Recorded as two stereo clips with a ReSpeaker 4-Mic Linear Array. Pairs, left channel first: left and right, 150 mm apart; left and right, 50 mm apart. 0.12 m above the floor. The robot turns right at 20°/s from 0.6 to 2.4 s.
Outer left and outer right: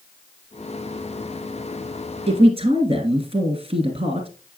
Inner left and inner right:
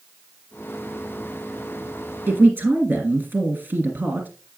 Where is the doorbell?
No doorbell in this recording.